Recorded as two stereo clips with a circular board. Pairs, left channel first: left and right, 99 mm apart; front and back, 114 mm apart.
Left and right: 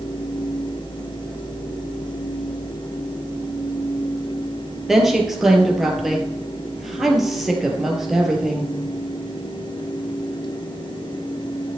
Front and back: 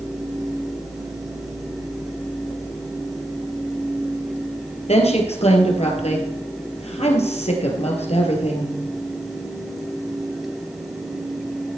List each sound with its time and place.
4.9 s a woman speaking: 5° right, 3.5 m